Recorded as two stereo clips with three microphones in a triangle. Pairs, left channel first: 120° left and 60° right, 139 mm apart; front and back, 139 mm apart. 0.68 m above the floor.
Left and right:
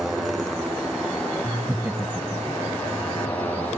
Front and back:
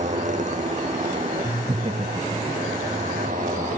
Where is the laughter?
135° right.